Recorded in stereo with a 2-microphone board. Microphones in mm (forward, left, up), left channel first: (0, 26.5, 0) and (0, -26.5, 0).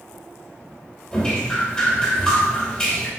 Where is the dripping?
15° left (ahead or behind), 3 m.